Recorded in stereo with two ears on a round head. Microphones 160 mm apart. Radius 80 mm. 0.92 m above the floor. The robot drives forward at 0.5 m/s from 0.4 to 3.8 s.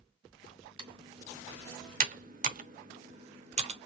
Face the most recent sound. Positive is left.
turn(degrees=-35)  # may be behind; listen again after turning